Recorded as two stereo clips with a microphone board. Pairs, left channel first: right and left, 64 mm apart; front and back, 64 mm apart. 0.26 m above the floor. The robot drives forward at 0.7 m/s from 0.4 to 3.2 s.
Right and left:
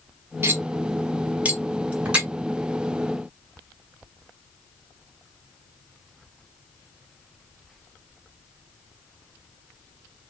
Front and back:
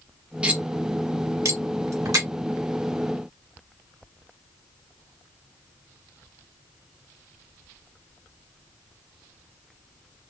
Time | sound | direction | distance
0.4 | cutlery clinking | 115° left | 0.8 m